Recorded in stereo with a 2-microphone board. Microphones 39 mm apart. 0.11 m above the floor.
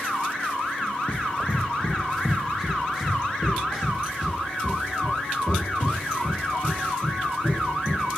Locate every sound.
1.1 s running footsteps: 30° left (ahead or behind), 0.8 m; by 8.0 s 30° right (ahead or behind), 4 m